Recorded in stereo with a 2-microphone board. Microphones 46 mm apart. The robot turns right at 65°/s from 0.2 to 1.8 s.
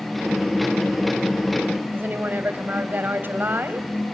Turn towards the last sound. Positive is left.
turn(degrees=-50)  # may be behind; listen again after turning